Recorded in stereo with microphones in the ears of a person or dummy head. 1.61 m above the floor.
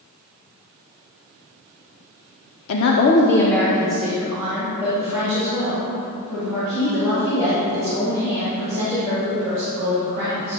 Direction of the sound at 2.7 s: 80° left.